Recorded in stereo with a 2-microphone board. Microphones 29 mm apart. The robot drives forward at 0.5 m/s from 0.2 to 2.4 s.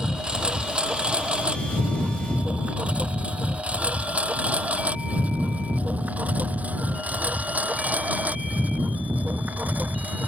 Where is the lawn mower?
30° right (ahead or behind); by 10.3 s 70° right (ahead or behind).